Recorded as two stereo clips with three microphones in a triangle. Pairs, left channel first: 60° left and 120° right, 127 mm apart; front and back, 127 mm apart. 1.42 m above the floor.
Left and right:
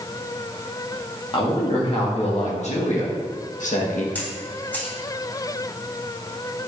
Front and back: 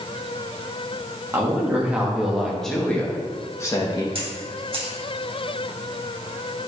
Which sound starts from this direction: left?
A woman speaking, at 1.3 s.